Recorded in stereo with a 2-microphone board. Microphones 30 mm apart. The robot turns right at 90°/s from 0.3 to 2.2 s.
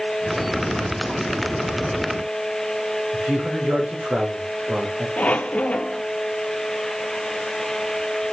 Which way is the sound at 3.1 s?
55° right (ahead or behind).